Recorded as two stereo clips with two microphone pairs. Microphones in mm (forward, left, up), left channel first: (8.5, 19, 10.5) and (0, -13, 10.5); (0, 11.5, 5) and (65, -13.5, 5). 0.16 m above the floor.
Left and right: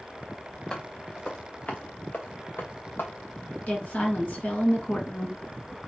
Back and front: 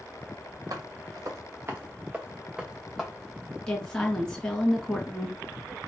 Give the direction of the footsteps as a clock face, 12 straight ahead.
12 o'clock.